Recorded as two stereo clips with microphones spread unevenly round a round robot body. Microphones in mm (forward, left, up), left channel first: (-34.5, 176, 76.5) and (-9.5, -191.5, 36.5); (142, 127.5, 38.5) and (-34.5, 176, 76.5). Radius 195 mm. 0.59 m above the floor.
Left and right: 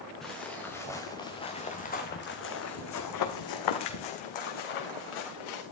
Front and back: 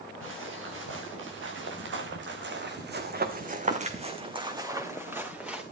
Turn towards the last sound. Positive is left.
turn(degrees=80)